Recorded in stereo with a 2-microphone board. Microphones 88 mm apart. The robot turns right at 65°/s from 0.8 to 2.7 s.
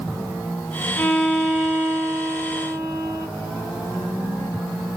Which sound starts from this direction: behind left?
A violin, at 1.0 s.